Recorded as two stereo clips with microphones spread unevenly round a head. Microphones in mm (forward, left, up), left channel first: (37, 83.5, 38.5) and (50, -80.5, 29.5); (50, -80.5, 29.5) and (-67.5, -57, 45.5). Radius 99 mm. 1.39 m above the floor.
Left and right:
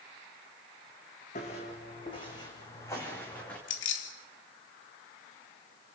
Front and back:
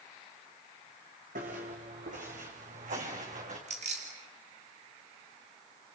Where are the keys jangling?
115° left, 2.5 m.